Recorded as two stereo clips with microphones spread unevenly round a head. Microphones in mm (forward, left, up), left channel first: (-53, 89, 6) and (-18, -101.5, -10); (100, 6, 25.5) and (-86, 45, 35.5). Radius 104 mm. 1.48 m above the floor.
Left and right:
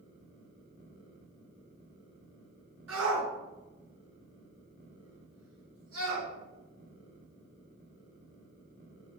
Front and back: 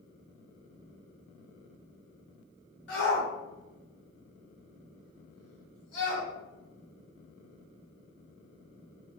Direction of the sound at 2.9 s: 50° right.